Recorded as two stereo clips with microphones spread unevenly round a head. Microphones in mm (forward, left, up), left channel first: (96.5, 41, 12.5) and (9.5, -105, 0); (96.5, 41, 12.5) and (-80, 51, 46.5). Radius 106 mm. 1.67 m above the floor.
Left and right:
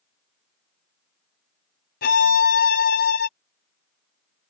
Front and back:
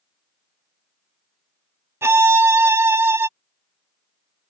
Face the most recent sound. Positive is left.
turn(degrees=105)